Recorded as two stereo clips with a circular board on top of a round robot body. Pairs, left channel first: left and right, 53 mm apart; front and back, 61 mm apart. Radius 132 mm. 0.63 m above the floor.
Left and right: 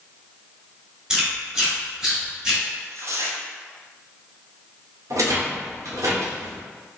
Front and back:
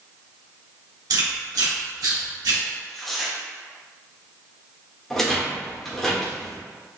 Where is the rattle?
85° right, 1.5 m.